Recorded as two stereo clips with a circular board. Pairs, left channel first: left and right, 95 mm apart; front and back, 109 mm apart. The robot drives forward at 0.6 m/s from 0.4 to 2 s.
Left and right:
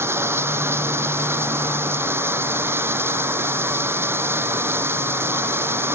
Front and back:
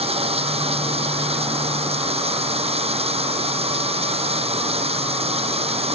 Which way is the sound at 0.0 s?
155° right.